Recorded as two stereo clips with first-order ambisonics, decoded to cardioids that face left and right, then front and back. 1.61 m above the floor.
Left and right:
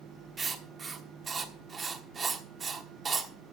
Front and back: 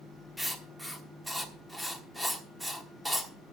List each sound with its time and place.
0.4 s writing: 100° right, 1.2 m